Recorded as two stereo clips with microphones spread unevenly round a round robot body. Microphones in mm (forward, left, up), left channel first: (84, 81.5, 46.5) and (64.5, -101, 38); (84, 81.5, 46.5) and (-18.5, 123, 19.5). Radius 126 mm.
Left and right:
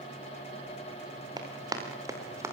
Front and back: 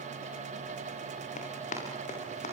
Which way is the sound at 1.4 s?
25° right.